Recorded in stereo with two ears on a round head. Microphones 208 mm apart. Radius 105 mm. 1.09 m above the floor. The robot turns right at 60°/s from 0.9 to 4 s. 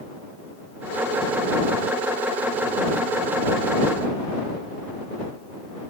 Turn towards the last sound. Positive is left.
No sound to turn to.